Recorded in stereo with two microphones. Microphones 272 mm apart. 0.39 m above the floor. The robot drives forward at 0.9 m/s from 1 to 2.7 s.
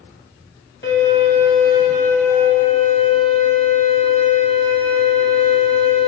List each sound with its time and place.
0.8 s a violin: 40° left (ahead or behind), 1.8 m; by 6.1 s 20° left (ahead or behind), 3 m